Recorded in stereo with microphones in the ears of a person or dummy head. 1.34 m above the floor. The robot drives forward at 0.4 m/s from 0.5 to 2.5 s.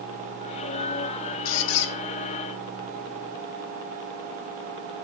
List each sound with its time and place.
1.4 s a squeak: 70° left (ahead or behind), 0.7 m; by 1.9 s 65° left (ahead or behind), 0.7 m